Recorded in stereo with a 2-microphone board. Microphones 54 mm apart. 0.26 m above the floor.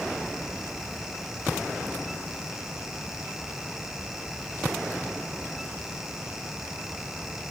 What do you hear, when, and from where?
Only background noise.